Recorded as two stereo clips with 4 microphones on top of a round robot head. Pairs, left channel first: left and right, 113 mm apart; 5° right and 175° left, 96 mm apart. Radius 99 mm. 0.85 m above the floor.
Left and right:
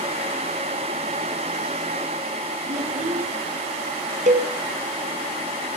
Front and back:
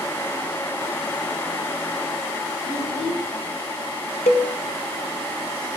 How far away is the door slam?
No door slam in this recording.